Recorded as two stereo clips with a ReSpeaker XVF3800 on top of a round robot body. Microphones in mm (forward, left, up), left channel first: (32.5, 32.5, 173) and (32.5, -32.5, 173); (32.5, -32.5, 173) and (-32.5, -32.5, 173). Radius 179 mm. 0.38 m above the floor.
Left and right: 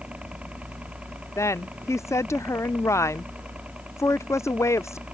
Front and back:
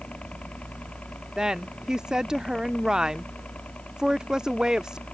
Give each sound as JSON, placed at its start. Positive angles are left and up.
{"t": 0.0, "sound": "a helicopter", "azimuth_deg": -45}
{"t": 1.4, "sound": "a woman speaking", "azimuth_deg": 105}